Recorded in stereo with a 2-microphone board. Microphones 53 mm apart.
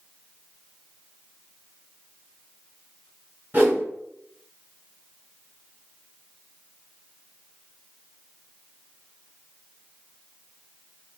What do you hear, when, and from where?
3.5 s a whoosh: 30° right (ahead or behind), 1.8 m